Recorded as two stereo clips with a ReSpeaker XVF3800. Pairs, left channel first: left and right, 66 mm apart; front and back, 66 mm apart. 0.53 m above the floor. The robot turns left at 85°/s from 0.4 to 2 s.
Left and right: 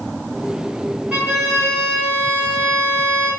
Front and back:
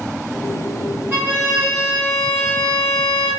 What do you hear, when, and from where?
1.1 s a violin: 150° right, 1.1 m; by 3.3 s 135° left, 1.1 m